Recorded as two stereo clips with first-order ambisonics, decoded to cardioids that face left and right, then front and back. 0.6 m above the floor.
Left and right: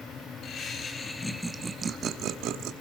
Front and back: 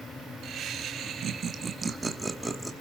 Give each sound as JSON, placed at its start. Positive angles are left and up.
{"t": 0.4, "sound": "laughter", "azimuth_deg": 135, "distance_m": 1.3}